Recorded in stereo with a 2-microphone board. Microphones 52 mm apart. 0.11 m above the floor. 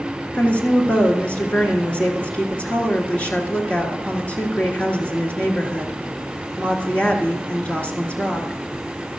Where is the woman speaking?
30° left (ahead or behind), 1.6 m.